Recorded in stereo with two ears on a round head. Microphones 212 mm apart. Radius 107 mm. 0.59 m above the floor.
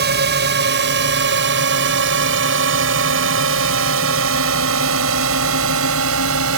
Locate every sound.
0.0 s a drone: 45° right (ahead or behind); by 6.6 s 65° right (ahead or behind)